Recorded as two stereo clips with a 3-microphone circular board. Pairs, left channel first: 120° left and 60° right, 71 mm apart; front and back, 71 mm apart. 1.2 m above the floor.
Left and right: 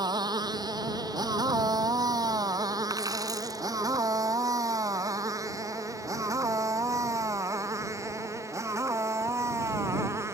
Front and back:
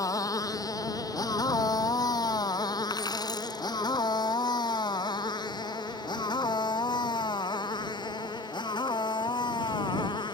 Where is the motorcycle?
40° right; by 10.3 s 10° right.